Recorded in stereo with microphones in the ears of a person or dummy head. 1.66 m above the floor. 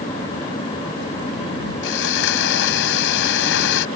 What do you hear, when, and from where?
1.8 s sawing: 60° left (ahead or behind)